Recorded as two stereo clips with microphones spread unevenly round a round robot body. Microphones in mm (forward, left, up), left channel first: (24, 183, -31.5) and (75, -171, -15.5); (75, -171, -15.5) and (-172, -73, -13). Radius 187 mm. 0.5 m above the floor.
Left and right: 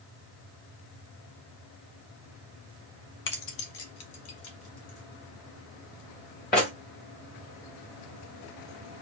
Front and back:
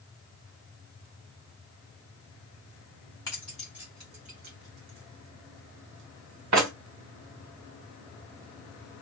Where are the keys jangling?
55° left, 0.9 m; by 6.7 s 160° left, 1.6 m.